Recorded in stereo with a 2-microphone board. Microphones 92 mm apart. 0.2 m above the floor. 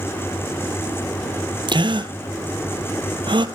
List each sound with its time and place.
1.7 s a gasp: 70° right (ahead or behind), 0.8 m